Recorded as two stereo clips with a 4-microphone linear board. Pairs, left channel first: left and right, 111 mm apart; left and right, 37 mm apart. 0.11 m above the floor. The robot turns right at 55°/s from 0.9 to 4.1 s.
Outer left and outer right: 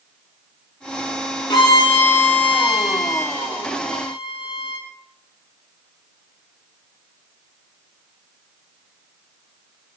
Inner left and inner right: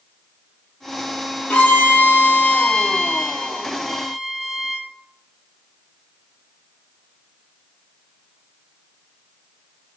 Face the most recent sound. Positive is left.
turn(degrees=-170)